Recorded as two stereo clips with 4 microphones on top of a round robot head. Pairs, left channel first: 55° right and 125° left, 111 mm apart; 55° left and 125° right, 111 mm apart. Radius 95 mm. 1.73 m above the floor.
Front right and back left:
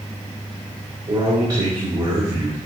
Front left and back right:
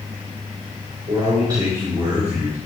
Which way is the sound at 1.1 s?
175° left.